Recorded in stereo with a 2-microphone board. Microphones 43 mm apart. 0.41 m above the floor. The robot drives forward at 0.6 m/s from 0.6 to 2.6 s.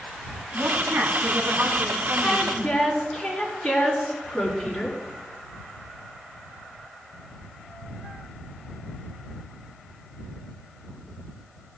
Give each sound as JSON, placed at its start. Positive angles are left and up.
{"t": 0.5, "sound": "a woman speaking", "side_deg": -75, "distance_m": 3.0}
{"t": 2.2, "sound": "a woman speaking", "side_deg": 5, "distance_m": 5.5}